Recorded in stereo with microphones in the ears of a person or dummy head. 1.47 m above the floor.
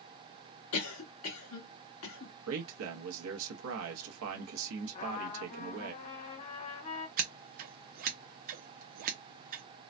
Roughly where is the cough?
Left.